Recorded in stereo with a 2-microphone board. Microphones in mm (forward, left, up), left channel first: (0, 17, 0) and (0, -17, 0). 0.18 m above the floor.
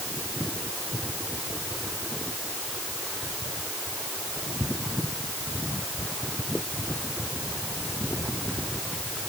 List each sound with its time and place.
Only background noise.